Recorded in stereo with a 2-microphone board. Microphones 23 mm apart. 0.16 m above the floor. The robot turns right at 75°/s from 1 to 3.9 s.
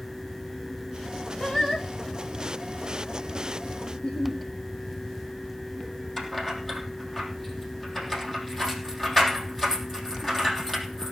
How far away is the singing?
About 3 m.